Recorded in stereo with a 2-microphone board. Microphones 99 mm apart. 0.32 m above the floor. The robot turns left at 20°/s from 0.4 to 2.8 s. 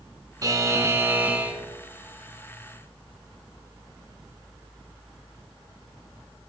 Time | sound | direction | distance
0.4 | a buzzer | 35° right (ahead or behind) | 1.6 m